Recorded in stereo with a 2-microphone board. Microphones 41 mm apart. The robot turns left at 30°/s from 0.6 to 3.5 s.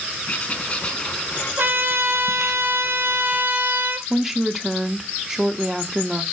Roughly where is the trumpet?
Ahead right.